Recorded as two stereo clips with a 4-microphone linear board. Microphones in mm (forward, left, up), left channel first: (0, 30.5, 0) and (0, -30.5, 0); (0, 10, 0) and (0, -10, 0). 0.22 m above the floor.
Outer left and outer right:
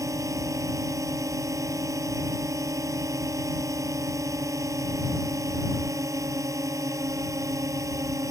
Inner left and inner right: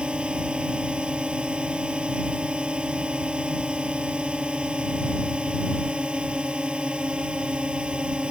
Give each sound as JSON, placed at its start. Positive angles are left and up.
{"t": 0.0, "sound": "a drone", "side_deg": -65}